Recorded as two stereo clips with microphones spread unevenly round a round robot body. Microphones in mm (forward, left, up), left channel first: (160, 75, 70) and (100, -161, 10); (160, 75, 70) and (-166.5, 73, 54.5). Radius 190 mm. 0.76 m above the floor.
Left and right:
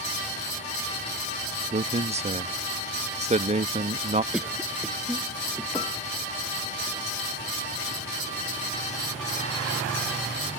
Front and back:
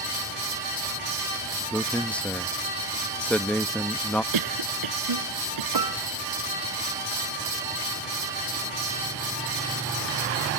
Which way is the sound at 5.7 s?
160° left.